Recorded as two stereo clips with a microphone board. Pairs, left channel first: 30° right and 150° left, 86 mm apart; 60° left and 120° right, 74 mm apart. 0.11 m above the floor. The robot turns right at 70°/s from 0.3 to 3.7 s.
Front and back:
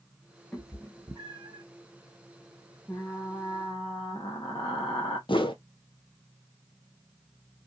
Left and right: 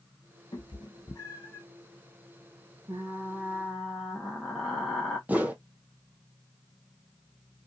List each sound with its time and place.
0.5 s a cat meowing: 55° left, 0.9 m; by 1.6 s 130° left, 0.9 m
2.9 s frying: 95° right, 1.0 m; by 5.2 s 35° right, 1.0 m
5.3 s a whoosh: 50° right, 0.5 m